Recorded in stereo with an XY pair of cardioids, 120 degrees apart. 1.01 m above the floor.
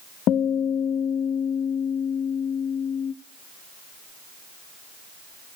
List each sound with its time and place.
0.3 s a guitar: 65° left, 0.6 m